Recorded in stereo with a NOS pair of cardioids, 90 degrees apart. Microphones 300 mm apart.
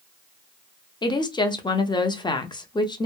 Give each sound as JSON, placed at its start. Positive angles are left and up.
{"t": 1.0, "sound": "a woman speaking", "azimuth_deg": 15, "distance_m": 0.5}